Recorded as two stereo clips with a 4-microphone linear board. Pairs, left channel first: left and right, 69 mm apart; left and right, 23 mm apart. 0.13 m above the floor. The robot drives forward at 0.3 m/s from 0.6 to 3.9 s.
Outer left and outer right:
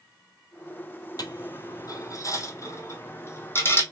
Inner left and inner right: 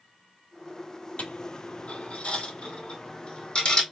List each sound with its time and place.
1.2 s a dropped coin: 70° left (ahead or behind), 0.8 m; by 3.8 s 35° left (ahead or behind), 1.3 m